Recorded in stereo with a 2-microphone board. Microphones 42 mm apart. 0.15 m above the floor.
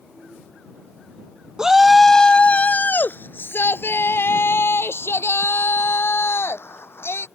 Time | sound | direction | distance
1.6 | a shout | 15° right (ahead or behind) | ?